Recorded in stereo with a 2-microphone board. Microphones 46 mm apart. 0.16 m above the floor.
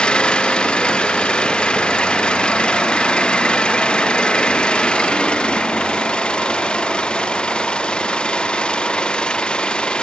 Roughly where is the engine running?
Left.